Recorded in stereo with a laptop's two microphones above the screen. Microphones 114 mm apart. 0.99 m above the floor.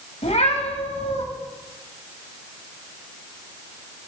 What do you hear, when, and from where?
0.2 s a cat meowing: 70° left (ahead or behind), 2.5 m